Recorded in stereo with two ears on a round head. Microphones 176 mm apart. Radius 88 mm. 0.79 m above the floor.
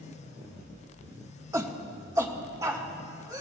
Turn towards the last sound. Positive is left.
turn(degrees=-20)  # may be behind; listen again after turning